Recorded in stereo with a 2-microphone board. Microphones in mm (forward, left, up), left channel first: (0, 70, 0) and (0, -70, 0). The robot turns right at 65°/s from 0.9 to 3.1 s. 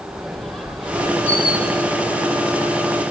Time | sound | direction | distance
0.1 | a squeak | straight behind | 3.5 m